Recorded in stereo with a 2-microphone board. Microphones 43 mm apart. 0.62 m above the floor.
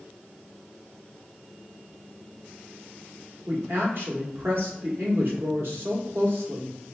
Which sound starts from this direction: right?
A woman speaking, at 3.5 s.